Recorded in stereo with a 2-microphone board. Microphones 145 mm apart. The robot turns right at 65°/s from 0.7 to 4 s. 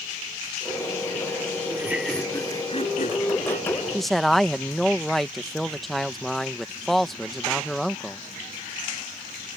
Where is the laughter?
25° right; by 3.8 s 115° left.